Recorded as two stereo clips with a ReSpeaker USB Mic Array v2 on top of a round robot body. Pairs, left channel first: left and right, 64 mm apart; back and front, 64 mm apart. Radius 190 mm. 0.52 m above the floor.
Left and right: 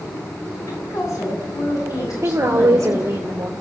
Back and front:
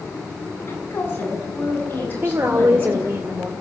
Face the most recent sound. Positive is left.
turn(degrees=-50)